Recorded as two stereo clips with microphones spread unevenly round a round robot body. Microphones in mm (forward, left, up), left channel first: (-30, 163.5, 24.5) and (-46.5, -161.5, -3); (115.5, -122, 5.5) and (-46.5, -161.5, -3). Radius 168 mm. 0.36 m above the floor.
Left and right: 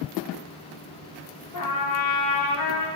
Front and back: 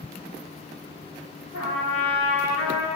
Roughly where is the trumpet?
Ahead left.